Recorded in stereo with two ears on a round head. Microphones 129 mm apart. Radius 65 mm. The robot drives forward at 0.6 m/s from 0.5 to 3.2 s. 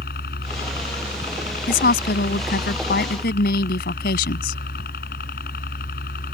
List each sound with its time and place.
0.0 s a helicopter: 70° left (ahead or behind)
1.7 s a woman speaking: 75° left (ahead or behind)